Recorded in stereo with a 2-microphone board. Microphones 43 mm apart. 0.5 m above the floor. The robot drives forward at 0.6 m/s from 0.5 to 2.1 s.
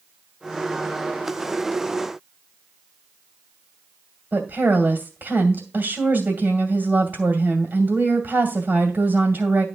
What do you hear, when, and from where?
4.3 s a woman speaking: 50° right (ahead or behind), 2 m